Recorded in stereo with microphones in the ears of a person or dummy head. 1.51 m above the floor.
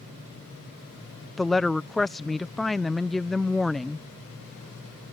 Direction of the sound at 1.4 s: Centre (ahead or behind).